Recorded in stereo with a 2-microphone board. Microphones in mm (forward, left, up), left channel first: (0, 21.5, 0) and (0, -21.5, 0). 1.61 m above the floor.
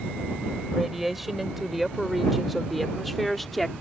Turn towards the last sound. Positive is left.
turn(degrees=0)  # may be behind; listen again after turning